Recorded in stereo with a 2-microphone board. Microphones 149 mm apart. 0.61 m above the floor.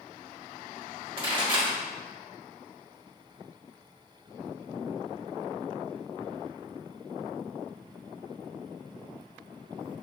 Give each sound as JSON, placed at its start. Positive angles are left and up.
{"t": 1.2, "sound": "a pop", "side_deg": -35, "distance_m": 1.3}